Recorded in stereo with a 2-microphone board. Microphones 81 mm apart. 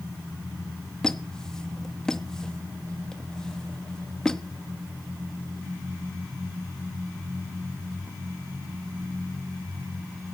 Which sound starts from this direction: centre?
A squeak, at 1.0 s.